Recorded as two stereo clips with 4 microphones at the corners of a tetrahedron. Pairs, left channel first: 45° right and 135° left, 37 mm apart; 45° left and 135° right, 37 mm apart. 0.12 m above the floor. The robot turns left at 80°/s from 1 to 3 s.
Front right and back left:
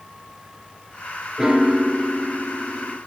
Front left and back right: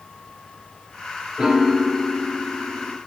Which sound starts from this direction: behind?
A piano, at 1.4 s.